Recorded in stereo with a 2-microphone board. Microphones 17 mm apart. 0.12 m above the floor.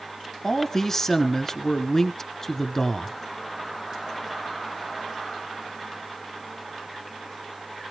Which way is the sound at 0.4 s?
20° left (ahead or behind).